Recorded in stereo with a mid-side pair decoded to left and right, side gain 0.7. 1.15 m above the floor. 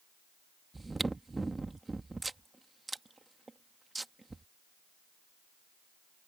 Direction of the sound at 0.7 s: 10° right.